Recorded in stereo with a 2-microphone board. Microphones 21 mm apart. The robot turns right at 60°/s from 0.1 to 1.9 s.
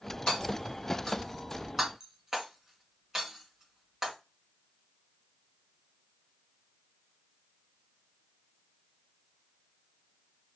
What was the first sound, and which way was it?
Hammering, 75° left (ahead or behind).